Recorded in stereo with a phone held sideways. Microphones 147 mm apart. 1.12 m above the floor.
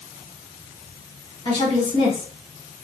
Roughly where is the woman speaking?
Left.